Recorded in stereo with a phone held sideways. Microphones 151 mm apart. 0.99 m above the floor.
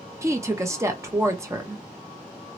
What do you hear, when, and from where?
0.2 s a woman speaking: 20° right (ahead or behind), 0.8 m